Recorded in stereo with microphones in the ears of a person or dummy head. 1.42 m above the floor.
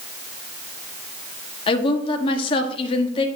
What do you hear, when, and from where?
1.7 s a woman speaking: 25° left (ahead or behind), 1.0 m